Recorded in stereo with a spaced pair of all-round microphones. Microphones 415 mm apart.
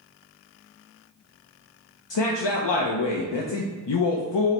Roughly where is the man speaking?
Left.